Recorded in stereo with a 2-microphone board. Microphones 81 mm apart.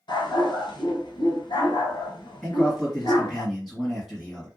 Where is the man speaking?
5° right (ahead or behind), 1.9 m.